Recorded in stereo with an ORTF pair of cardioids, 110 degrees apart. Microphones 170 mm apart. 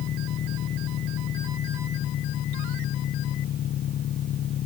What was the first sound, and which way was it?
An engine running, 60° left.